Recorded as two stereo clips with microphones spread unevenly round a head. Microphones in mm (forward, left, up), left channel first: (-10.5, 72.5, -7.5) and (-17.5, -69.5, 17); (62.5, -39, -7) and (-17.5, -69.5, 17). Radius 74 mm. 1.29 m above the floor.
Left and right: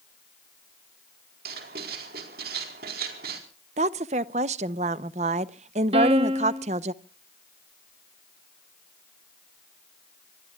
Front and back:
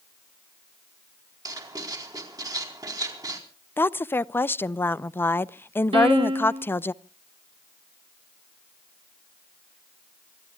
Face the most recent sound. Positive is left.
turn(degrees=-145)